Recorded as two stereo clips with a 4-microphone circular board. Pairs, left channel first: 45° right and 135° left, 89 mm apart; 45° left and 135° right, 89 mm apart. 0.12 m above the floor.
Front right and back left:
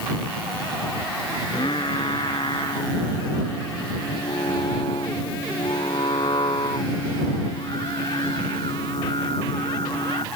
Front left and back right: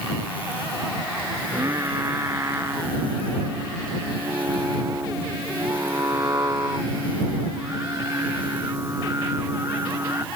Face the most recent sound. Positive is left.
turn(degrees=-75)